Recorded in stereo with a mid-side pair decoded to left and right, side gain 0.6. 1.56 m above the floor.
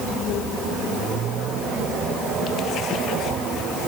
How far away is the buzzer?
No buzzer in this recording.